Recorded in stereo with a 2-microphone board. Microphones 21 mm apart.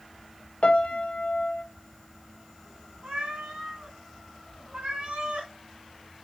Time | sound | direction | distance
0.6 | a piano | 75° left (ahead or behind) | 0.7 m
3.0 | a cat meowing | 70° right (ahead or behind) | 2.5 m